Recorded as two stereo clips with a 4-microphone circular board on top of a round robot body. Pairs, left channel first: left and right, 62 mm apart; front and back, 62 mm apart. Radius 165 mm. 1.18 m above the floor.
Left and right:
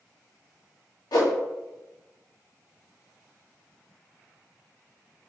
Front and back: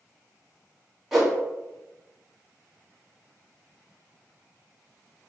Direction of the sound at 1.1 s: 95° left.